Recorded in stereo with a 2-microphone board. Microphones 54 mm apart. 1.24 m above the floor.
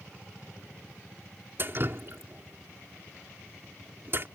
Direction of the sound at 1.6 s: 45° right (ahead or behind).